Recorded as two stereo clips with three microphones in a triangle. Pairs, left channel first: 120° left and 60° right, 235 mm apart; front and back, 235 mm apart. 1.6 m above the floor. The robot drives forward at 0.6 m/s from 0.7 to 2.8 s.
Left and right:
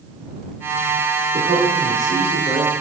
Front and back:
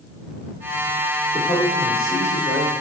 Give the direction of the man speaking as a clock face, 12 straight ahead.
4 o'clock.